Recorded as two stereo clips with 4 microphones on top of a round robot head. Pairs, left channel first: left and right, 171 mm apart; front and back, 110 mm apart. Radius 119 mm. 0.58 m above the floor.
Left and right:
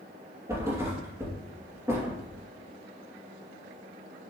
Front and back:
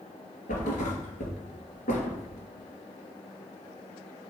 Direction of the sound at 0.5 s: 15° right.